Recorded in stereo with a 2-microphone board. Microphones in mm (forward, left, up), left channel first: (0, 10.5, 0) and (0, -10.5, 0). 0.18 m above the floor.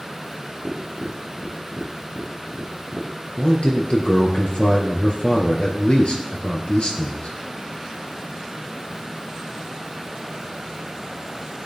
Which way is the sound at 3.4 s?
60° left (ahead or behind).